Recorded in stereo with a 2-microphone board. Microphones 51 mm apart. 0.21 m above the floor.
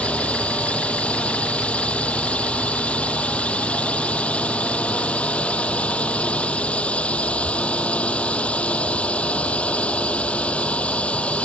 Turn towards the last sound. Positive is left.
turn(degrees=20)  # may be behind; listen again after turning